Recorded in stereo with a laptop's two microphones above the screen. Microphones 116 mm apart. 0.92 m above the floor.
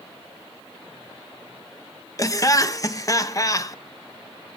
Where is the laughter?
30° left (ahead or behind), 1.0 m.